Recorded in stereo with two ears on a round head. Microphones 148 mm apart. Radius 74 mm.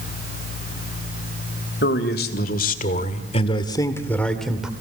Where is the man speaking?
70° left (ahead or behind), 2.5 m; by 4.7 s 5° right (ahead or behind), 2.0 m.